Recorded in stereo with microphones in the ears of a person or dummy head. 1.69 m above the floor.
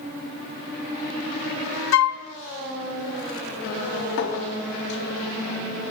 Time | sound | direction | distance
1.9 | a flute | 75° left (ahead or behind) | 0.5 m
4.2 | a clink | 65° left (ahead or behind) | 2.0 m